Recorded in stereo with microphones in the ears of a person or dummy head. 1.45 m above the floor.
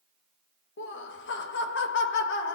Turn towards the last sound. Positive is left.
turn(degrees=50)  # may be behind; listen again after turning